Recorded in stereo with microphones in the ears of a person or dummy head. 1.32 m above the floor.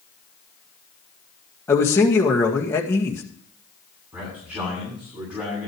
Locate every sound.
1.7 s a man speaking: 10° left (ahead or behind), 2.0 m
4.1 s a man speaking: 10° right (ahead or behind), 8.5 m